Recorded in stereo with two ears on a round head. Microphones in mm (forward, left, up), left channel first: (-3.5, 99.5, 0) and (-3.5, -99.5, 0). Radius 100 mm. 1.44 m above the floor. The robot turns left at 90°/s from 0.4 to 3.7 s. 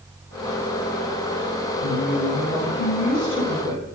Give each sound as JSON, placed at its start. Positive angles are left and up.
{"t": 1.8, "sound": "a woman speaking", "azimuth_deg": 145, "distance_m": 7.0}